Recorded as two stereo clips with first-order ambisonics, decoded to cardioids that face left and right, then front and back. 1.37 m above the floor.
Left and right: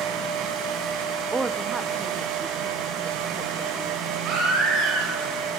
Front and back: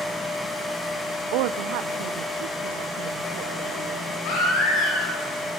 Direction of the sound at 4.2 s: 45° right.